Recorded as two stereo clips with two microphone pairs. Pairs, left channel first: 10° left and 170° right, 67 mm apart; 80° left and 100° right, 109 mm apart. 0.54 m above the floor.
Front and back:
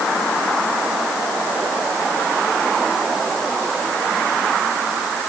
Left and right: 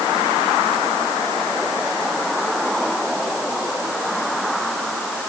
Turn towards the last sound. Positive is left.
No sound to turn to.